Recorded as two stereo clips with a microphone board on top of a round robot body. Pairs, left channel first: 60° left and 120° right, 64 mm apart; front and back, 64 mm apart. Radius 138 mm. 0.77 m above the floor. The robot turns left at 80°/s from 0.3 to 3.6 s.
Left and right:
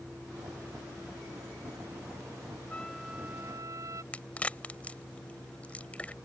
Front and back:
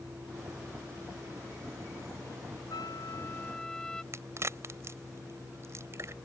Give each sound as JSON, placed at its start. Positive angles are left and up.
{"t": 2.7, "sound": "a trumpet", "azimuth_deg": -10}
{"t": 4.1, "sound": "a crack", "azimuth_deg": 130}